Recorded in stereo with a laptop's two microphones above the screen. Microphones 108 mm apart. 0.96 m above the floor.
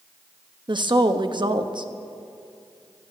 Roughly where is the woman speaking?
Right.